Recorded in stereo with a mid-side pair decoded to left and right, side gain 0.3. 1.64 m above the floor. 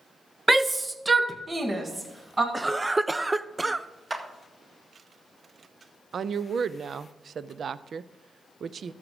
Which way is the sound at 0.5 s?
20° right.